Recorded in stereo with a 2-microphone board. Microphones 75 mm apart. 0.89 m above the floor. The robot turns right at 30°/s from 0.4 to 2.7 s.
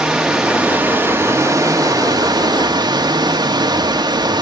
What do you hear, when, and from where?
0.0 s running water: 170° right, 1.6 m; by 4.4 s 100° right, 1.6 m